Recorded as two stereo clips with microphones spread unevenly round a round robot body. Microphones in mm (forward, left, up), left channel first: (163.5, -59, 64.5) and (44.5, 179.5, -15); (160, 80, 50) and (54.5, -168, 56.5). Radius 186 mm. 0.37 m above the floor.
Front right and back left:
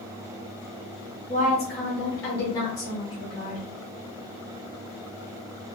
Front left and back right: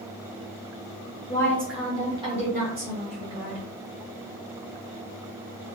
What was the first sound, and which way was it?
A woman speaking, 10° left.